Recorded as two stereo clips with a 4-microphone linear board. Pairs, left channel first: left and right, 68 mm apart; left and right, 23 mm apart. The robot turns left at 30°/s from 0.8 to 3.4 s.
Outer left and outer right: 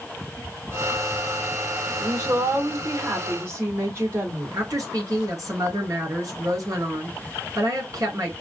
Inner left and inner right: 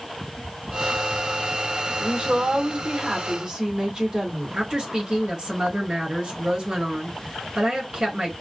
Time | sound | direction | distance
2.0 | a woman speaking | 90° right | 1.7 m
4.5 | a woman speaking | 60° right (ahead or behind) | 2.5 m